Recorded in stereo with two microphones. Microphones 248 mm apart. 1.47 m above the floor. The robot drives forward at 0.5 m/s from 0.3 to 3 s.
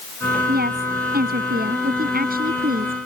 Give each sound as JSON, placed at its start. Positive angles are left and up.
{"t": 0.5, "sound": "a woman speaking", "side_deg": -40}